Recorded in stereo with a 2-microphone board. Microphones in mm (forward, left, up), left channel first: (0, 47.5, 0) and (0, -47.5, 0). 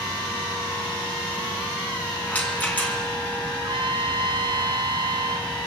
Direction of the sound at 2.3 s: 15° left (ahead or behind).